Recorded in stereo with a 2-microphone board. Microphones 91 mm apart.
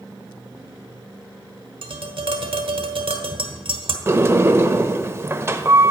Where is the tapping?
70° right (ahead or behind), 1.2 m.